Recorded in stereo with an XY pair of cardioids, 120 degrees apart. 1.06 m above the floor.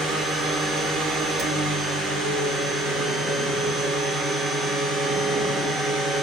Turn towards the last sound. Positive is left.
turn(degrees=-60)